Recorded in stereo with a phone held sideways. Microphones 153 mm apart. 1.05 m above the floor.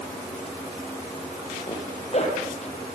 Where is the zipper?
45° left (ahead or behind), 5.5 m.